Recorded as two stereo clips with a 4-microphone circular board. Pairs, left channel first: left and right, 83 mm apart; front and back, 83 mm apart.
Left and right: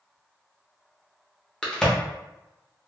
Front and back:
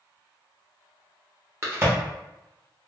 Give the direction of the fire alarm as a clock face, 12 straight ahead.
I don't hear a fire alarm.